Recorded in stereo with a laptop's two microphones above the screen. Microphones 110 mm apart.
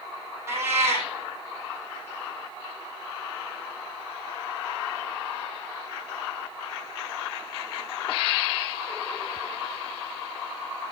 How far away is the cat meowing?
About 2.5 m.